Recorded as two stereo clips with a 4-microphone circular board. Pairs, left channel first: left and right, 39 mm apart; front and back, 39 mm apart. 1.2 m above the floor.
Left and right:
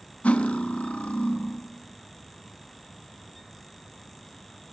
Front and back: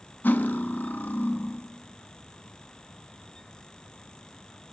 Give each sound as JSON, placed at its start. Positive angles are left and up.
{"t": 0.2, "sound": "cutlery clinking", "azimuth_deg": 35, "distance_m": 0.9}